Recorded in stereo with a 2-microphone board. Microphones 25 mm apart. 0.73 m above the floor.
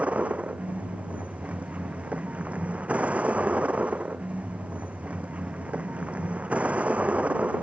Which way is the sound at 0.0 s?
60° right (ahead or behind).